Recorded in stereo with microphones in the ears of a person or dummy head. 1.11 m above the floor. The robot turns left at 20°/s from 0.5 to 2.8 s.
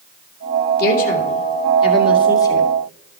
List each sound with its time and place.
0.8 s a woman speaking: 55° left (ahead or behind), 2 m; by 2.7 s 15° left (ahead or behind), 2 m